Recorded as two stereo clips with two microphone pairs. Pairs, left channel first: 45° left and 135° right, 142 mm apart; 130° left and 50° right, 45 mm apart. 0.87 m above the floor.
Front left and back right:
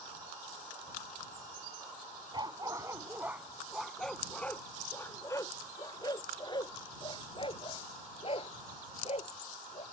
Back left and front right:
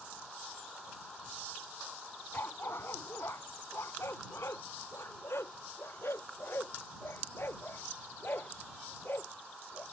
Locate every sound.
2.3 s a dog barking: 165° left; by 9.8 s 90° left